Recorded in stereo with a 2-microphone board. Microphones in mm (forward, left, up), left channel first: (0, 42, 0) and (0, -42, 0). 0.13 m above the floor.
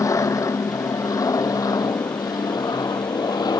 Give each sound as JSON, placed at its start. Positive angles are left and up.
{"t": 0.0, "sound": "an aircraft", "side_deg": 45}